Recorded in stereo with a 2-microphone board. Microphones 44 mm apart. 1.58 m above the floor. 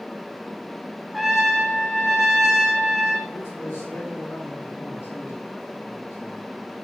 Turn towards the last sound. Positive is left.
turn(degrees=80)